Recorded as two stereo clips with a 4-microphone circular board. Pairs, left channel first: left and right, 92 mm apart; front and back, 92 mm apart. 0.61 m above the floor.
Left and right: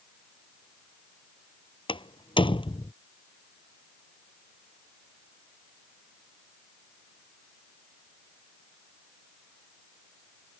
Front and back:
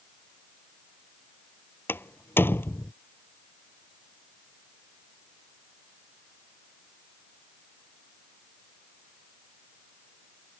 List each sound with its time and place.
1.9 s a door slam: 65° left